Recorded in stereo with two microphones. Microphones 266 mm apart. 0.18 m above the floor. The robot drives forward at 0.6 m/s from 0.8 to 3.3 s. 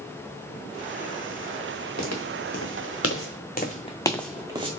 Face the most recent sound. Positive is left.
turn(degrees=-20)  # may be behind; listen again after turning